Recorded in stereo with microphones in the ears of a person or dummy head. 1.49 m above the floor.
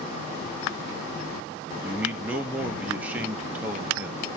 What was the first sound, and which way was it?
A man speaking, 5° right (ahead or behind).